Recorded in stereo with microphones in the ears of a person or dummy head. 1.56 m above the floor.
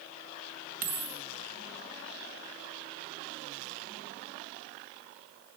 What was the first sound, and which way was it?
A dropped coin, 45° right (ahead or behind).